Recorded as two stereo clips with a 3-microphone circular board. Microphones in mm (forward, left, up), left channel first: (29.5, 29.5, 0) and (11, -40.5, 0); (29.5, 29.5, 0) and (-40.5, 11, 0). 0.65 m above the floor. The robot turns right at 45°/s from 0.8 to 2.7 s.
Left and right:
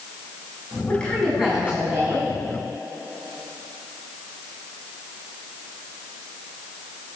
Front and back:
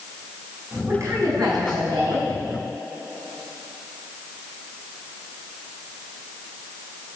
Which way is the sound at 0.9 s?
140° left.